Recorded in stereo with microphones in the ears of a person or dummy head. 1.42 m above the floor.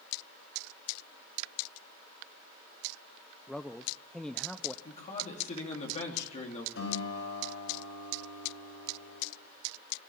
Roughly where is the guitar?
Left.